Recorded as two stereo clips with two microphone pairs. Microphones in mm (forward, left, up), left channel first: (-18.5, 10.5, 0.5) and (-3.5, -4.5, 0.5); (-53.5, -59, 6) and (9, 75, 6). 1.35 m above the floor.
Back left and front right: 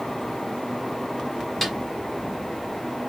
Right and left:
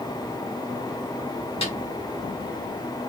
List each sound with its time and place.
1.6 s a snare drum: 145° right, 1.2 m